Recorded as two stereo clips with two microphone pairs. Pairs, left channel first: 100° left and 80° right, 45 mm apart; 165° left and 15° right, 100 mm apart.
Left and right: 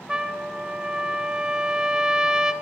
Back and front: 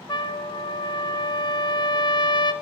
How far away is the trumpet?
About 0.6 m.